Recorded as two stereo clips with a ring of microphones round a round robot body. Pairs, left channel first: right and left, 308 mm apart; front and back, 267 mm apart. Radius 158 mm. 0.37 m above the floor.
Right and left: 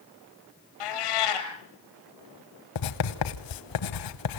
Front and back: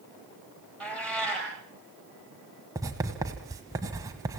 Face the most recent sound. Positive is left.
turn(degrees=-100)